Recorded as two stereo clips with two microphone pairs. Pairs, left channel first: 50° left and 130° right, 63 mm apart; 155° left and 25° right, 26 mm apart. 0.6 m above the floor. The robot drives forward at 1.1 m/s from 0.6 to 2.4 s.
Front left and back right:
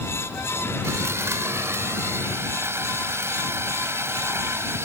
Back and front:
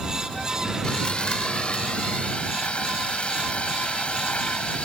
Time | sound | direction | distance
0.8 | sawing | 165° right | ?